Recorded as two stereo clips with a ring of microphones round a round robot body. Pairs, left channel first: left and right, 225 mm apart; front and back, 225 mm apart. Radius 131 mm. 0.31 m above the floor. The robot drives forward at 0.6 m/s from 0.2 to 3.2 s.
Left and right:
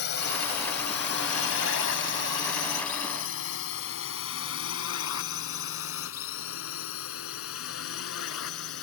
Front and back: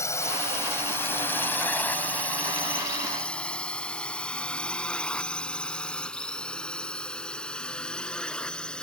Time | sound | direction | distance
0.0 | a drone | 75° left | ?